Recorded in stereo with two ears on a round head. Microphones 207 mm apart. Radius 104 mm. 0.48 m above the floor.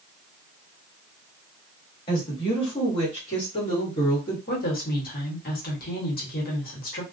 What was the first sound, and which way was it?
A woman speaking, 20° left (ahead or behind).